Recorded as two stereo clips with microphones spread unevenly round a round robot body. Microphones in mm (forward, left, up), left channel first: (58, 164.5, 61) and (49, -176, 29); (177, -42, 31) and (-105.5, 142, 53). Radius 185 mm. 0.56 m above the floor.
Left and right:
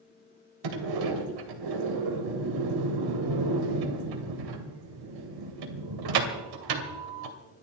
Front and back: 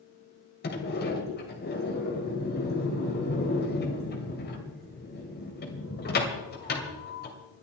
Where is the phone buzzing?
I don't hear a phone buzzing.